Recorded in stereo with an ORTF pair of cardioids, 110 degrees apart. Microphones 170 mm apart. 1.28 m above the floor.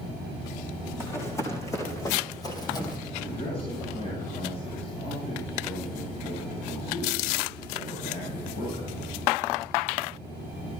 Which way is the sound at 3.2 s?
35° left.